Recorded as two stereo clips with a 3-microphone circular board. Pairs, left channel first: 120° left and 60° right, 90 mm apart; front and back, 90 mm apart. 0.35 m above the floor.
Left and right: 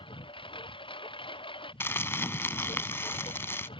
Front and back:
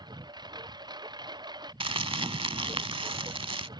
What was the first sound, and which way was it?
A lawn mower, 140° left.